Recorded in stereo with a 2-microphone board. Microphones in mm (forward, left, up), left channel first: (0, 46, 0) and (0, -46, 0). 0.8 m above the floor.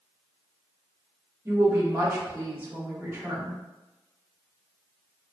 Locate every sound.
1.4 s a woman speaking: 20° right (ahead or behind), 1.5 m